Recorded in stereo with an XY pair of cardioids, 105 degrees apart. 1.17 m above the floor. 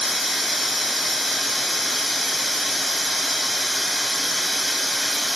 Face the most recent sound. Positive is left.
turn(degrees=10)